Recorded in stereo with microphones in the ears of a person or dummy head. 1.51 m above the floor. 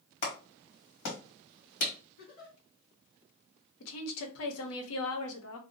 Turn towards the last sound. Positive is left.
turn(degrees=80)